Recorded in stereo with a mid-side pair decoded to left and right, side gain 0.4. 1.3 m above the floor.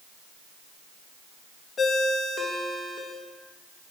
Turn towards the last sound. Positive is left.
turn(degrees=50)